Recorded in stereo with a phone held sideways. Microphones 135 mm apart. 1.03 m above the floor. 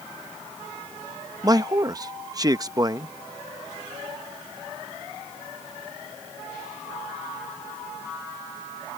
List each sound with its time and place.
1.4 s a man speaking: 30° right (ahead or behind)